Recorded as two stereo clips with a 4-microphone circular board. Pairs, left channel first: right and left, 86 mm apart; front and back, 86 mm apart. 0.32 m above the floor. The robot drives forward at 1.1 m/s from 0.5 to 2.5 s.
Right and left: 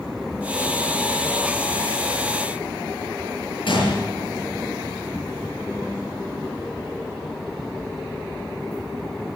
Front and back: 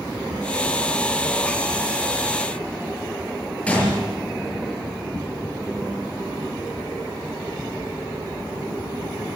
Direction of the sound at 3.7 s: 75° right.